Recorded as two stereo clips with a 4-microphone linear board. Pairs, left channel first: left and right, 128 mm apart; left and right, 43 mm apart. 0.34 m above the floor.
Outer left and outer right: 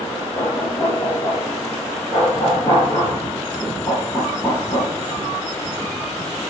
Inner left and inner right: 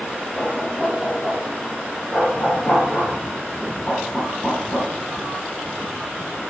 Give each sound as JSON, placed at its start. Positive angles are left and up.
{"t": 0.3, "sound": "knocking", "side_deg": 25, "distance_m": 5.0}